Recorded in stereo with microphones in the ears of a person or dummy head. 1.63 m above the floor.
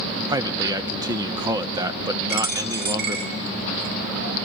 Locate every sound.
0.3 s a man speaking: 25° right (ahead or behind), 0.6 m
2.3 s a dropped coin: 55° right (ahead or behind), 2.5 m